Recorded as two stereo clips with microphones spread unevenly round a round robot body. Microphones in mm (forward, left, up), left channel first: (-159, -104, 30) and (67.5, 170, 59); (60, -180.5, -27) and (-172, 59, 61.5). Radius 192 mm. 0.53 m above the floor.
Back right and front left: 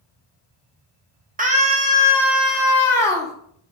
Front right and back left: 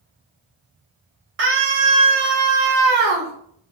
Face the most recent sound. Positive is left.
turn(degrees=155)